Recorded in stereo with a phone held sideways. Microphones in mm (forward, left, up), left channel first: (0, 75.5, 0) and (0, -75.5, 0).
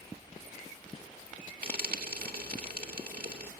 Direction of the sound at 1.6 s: 75° right (ahead or behind).